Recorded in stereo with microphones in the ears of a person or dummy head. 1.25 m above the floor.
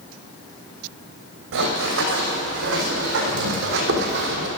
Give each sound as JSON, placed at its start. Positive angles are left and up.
{"t": 1.5, "sound": "running footsteps", "side_deg": -75, "distance_m": 5.5}